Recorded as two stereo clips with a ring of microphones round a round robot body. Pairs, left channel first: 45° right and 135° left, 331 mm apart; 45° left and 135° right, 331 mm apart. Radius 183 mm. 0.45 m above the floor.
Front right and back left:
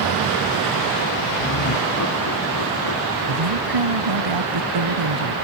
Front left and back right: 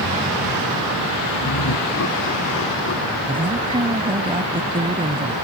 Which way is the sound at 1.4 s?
5° left.